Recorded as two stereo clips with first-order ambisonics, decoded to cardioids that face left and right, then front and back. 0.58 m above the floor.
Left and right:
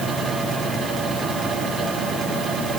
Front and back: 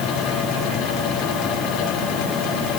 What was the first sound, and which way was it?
Only background noise.